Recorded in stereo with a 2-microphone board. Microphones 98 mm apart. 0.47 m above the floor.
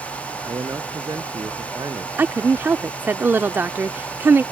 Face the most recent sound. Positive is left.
turn(degrees=-20)  # may be behind; listen again after turning